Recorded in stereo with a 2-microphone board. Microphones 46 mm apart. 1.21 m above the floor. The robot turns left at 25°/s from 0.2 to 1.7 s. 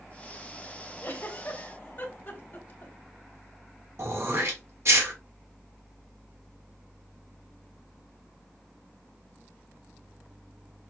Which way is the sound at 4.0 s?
75° right (ahead or behind).